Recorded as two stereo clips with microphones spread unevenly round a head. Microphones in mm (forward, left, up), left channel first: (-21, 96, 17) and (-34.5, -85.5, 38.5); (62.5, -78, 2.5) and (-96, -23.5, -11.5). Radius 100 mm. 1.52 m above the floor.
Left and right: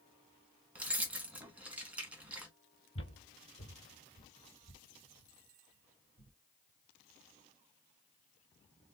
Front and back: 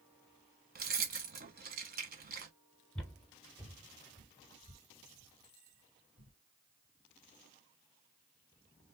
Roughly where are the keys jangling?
Behind.